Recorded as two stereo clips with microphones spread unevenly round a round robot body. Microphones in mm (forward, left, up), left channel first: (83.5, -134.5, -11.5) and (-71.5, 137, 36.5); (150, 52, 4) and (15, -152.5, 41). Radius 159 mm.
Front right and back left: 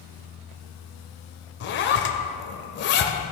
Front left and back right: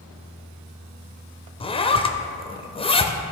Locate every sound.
1.6 s a zipper: 10° right, 0.7 m